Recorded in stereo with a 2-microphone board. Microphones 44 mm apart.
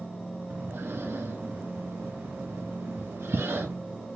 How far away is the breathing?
About 1.1 m.